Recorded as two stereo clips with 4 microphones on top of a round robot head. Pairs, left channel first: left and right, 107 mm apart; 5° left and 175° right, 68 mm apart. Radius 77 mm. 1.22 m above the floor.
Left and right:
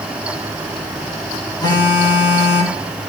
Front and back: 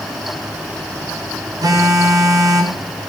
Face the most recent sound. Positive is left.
turn(degrees=150)